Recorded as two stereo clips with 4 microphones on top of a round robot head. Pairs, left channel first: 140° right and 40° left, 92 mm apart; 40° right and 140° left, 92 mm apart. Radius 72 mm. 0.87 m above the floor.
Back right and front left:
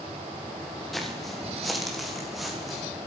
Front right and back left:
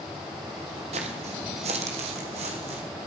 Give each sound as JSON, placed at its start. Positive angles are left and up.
{"t": 0.9, "sound": "footsteps", "azimuth_deg": 130, "distance_m": 1.9}